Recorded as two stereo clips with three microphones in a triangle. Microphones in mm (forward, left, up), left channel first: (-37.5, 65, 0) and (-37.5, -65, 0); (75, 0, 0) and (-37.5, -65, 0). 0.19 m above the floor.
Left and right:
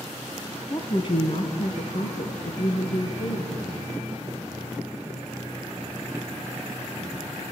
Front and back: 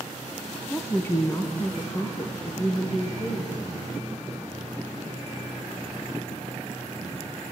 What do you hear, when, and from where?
0.7 s a woman speaking: 95° left, 1.1 m; by 3.5 s 90° left, 3 m